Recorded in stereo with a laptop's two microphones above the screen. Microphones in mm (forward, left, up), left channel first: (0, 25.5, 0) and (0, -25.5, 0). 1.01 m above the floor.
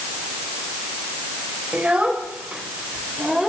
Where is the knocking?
I don't hear knocking.